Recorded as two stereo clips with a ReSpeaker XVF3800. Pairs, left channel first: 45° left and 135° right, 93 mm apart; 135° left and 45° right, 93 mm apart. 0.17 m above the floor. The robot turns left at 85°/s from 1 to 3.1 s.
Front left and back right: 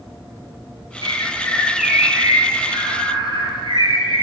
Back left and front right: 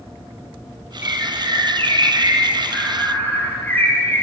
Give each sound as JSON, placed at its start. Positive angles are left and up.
{"t": 1.0, "sound": "a bird", "azimuth_deg": 15, "distance_m": 2.0}